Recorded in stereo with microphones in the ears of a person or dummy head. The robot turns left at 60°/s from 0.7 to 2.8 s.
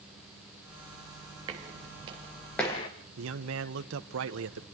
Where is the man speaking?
70° right (ahead or behind), 1.6 m.